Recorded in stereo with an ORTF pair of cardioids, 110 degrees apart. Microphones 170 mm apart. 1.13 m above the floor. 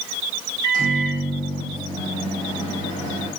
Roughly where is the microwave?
Ahead right.